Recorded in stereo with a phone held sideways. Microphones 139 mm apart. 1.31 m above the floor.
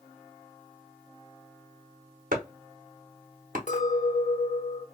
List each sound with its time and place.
2.3 s chopping: 85° right, 0.9 m
3.7 s a clink: 65° left (ahead or behind), 1.3 m